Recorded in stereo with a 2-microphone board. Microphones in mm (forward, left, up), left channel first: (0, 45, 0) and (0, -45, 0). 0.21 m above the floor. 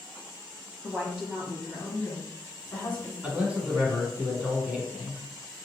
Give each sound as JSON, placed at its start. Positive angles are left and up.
{"t": 0.8, "sound": "a woman speaking", "side_deg": -20, "distance_m": 1.2}
{"t": 3.2, "sound": "a man speaking", "side_deg": -15, "distance_m": 1.6}